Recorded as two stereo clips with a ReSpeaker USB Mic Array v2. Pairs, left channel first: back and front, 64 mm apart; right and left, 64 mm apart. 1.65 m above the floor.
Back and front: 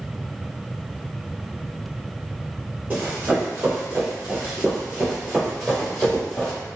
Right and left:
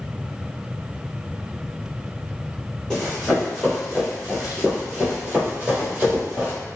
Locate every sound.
2.9 s running footsteps: 15° right, 1.8 m; by 6.5 s 115° left, 2.0 m